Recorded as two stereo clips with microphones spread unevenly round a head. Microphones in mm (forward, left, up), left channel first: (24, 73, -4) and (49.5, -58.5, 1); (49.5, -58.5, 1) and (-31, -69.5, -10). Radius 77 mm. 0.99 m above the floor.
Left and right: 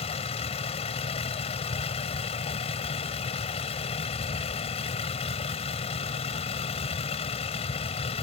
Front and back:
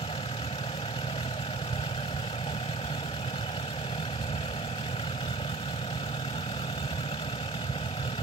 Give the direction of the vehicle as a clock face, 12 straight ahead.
10 o'clock.